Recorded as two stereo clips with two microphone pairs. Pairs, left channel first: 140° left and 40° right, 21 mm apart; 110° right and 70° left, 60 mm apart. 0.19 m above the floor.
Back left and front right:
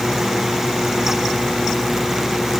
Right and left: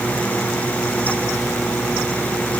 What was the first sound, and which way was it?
Only background noise.